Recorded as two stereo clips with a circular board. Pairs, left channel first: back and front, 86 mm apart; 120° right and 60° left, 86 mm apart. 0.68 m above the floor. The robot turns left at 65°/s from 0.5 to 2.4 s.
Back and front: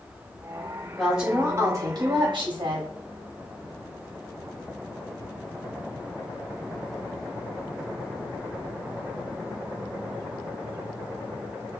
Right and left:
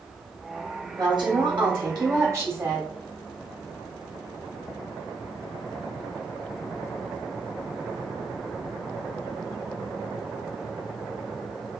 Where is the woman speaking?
95° left, 1.8 m; by 2.9 s straight ahead, 1.8 m.